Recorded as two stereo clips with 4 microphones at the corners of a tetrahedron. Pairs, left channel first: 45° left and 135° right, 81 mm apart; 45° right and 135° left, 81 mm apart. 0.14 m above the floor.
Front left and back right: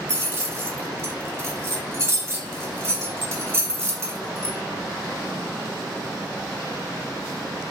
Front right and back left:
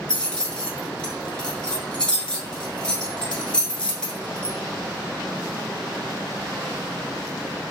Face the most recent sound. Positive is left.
turn(degrees=-115)